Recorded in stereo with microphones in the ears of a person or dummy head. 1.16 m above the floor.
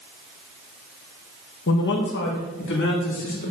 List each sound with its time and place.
1.7 s a man speaking: 60° left (ahead or behind), 1.2 m; by 3.5 s 65° left (ahead or behind), 3 m